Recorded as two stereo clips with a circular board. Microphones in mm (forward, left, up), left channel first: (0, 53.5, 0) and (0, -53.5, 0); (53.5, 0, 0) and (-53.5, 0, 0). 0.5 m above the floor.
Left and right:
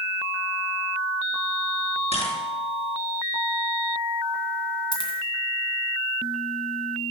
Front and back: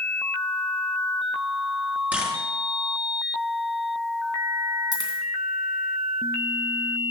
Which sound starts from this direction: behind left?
A dropped coin, at 4.9 s.